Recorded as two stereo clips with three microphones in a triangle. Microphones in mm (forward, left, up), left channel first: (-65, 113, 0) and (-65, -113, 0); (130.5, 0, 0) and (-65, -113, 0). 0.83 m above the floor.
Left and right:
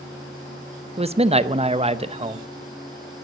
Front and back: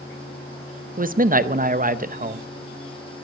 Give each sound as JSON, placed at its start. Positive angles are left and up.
{"t": 1.0, "sound": "a man speaking", "azimuth_deg": -135, "distance_m": 0.6}